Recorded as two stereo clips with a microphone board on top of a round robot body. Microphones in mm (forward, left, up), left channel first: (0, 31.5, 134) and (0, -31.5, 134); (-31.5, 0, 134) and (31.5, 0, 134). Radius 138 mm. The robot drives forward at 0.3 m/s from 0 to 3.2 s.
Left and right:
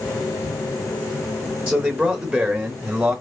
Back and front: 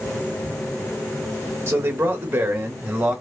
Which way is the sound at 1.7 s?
35° right.